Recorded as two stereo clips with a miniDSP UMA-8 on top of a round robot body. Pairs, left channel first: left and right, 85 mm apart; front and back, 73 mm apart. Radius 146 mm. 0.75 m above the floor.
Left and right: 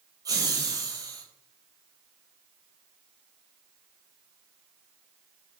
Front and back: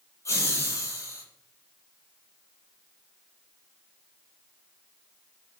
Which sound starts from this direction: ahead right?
Laughter, at 0.2 s.